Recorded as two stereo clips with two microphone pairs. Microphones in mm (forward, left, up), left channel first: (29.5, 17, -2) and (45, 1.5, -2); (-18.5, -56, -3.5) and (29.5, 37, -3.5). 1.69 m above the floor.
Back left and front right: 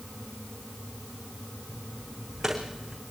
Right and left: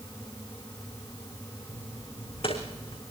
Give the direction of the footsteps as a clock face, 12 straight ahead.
4 o'clock.